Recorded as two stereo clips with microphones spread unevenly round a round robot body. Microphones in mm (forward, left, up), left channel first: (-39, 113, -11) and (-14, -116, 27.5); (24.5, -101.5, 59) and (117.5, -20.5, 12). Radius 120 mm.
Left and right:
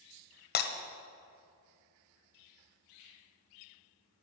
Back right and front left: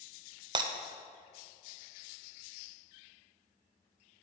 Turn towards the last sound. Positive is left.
turn(degrees=65)